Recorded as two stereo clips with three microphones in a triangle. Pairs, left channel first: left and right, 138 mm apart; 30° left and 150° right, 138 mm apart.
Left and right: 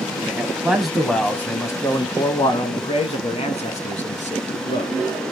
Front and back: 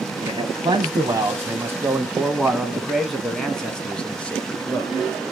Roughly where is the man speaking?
Behind right.